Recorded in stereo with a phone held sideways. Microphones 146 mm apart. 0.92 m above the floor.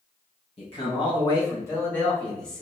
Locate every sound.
0.6 s a man speaking: 45° left (ahead or behind), 1.2 m; by 2.6 s 5° left (ahead or behind), 1.7 m